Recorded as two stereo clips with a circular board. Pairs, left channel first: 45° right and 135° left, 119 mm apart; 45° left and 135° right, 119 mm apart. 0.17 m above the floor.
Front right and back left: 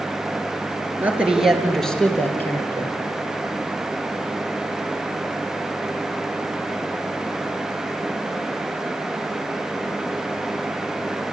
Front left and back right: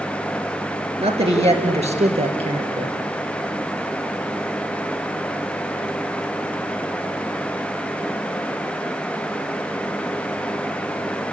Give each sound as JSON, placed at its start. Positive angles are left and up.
{"t": 1.0, "sound": "a man speaking", "azimuth_deg": -150, "distance_m": 3.0}